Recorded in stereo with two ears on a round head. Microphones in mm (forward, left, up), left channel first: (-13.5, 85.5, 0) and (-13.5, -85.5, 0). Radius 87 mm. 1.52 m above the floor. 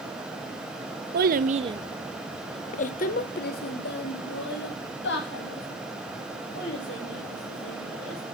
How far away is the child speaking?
About 0.7 m.